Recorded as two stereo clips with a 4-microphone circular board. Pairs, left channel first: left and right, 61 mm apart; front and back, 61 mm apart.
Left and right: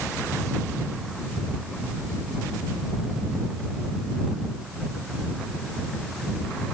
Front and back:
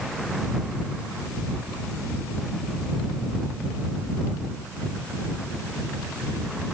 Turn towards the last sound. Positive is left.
No sound to turn to.